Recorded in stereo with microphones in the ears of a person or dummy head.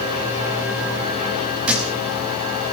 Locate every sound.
1.7 s a thud: 5° right (ahead or behind), 7 m